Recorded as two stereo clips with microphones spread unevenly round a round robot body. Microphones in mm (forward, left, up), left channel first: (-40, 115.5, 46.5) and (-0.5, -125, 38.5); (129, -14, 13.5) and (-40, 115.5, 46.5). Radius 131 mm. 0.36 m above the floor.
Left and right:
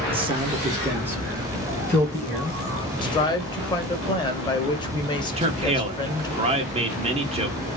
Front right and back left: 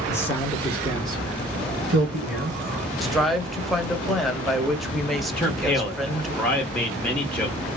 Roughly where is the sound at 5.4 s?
Right.